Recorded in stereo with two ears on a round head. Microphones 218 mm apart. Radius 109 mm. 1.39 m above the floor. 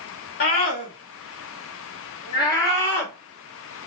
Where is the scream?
40° left (ahead or behind), 2.5 m; by 3.9 s 5° left (ahead or behind), 3.5 m.